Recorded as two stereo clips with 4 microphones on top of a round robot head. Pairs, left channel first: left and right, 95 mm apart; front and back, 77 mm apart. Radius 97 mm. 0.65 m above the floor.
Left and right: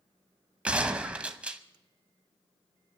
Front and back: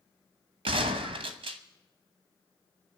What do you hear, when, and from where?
0.7 s a gunshot: 165° right, 0.9 m